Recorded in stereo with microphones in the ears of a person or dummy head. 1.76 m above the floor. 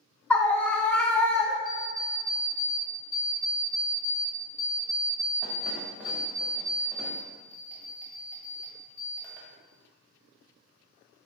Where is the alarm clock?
5° right (ahead or behind), 1.6 m.